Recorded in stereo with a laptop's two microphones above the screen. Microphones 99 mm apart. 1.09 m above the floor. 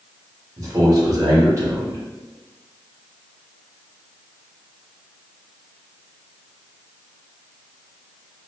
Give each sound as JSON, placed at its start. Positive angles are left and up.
{"t": 0.6, "sound": "a man speaking", "side_deg": -35, "distance_m": 1.7}